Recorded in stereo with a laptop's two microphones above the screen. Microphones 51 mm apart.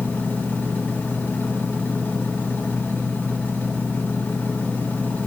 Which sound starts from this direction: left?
A machine running, at 0.0 s.